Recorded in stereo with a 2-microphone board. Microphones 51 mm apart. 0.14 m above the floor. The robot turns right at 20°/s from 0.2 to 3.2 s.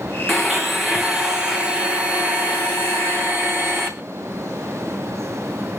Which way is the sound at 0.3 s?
175° left.